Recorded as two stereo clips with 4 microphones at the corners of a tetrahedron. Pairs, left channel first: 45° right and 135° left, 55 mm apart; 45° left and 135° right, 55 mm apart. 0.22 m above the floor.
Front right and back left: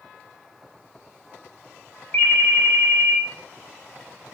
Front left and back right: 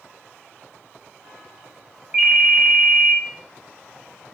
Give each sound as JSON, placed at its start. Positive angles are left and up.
{"t": 2.1, "sound": "a ringtone", "azimuth_deg": -90, "distance_m": 0.7}